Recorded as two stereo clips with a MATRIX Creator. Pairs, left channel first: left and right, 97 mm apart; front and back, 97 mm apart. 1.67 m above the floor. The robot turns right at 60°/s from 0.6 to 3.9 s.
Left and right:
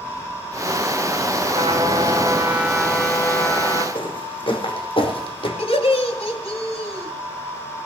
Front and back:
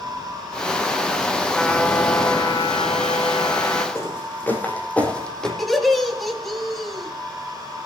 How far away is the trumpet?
About 3 m.